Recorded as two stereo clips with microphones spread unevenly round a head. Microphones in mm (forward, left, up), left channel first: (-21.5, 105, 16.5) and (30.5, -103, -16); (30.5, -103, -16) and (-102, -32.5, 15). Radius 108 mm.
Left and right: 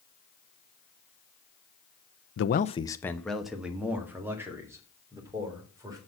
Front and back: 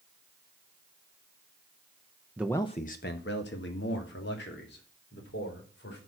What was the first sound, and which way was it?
A man speaking, 75° left.